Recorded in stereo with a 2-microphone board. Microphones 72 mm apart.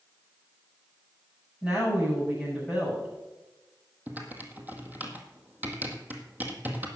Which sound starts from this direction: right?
Typing on a keyboard, at 4.1 s.